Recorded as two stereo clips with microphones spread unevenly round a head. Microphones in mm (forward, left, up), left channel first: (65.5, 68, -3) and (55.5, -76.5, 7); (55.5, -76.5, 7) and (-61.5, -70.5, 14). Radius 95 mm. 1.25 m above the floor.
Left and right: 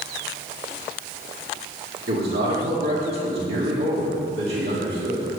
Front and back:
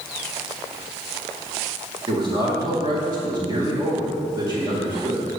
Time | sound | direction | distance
2.1 | a man speaking | 130° right | 1.9 m